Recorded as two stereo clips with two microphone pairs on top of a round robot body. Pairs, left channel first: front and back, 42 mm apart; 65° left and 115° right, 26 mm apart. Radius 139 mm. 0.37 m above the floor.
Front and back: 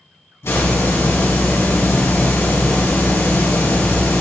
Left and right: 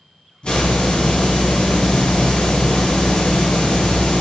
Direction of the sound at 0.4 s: 15° left.